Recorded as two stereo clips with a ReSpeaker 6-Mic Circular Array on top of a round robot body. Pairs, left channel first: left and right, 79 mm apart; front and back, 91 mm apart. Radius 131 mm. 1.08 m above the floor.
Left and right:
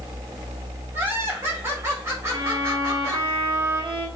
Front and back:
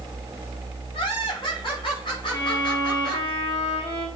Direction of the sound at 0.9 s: 30° right.